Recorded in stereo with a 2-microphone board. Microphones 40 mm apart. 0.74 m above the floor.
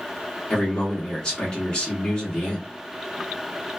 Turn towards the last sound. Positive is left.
turn(degrees=20)  # may be behind; listen again after turning